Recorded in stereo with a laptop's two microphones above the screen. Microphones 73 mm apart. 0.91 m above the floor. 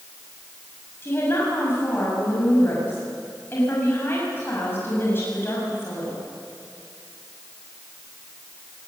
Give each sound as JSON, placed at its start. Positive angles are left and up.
{"t": 1.0, "sound": "a woman speaking", "side_deg": 35, "distance_m": 6.0}